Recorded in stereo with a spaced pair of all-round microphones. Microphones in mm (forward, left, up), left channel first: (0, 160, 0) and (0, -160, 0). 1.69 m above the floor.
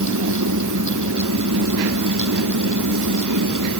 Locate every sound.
0.0 s a fan: 65° right (ahead or behind)